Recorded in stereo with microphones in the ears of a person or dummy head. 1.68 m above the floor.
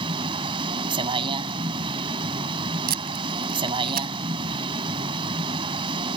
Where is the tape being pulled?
45° right (ahead or behind).